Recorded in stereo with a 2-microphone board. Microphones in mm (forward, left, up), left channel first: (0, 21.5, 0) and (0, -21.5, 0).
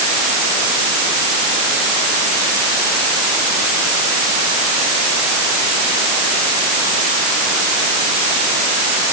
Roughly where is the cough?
No cough in this recording.